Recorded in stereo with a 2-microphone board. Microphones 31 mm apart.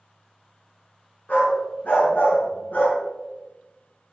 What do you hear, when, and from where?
1.3 s a dog barking: 70° left (ahead or behind), 4 m